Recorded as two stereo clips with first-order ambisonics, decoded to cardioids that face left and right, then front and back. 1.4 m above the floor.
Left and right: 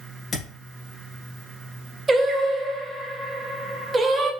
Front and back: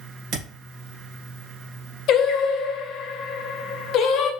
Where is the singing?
20° right, 0.6 m.